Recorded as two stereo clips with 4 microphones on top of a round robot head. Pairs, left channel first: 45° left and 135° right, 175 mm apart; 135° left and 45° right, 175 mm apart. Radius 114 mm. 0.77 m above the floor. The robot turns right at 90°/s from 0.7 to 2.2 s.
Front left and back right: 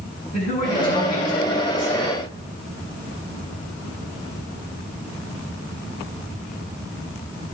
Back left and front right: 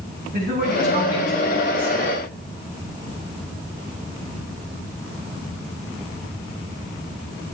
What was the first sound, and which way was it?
A man speaking, 10° right.